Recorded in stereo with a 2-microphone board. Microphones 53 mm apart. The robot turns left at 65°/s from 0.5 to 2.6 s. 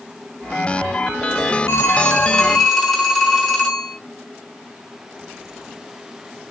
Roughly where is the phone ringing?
Ahead left.